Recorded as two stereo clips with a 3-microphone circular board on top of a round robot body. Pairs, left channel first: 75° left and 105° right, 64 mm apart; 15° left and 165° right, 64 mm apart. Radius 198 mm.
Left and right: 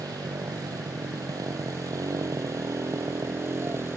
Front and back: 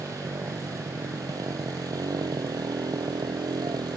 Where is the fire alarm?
I don't hear a fire alarm.